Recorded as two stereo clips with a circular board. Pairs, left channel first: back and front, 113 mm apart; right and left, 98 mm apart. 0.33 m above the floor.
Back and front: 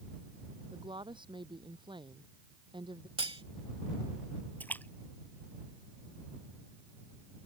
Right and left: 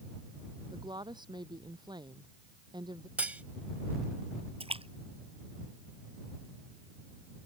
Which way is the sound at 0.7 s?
45° left.